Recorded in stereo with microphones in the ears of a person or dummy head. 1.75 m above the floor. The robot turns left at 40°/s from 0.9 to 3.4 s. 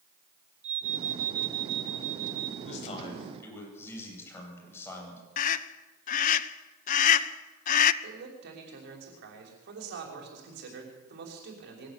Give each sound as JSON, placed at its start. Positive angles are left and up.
{"t": 0.6, "sound": "an alarm", "azimuth_deg": -45, "distance_m": 4.5}
{"t": 2.6, "sound": "a man speaking", "azimuth_deg": 45, "distance_m": 9.0}
{"t": 5.4, "sound": "a scream", "side_deg": 45, "distance_m": 1.1}
{"t": 8.0, "sound": "a man speaking", "side_deg": -60, "distance_m": 5.5}